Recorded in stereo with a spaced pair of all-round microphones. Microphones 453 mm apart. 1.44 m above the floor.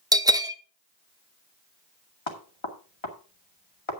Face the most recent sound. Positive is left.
turn(degrees=75)  # may be behind; listen again after turning